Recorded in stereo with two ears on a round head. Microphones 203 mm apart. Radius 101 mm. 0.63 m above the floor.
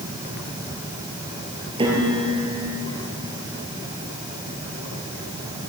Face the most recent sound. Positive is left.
turn(degrees=-20)  # may be behind; listen again after turning